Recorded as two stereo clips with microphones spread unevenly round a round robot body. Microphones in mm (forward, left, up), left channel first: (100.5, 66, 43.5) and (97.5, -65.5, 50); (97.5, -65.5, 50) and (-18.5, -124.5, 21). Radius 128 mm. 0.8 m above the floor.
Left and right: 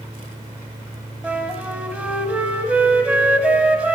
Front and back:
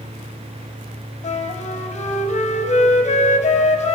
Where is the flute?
10° right, 0.9 m.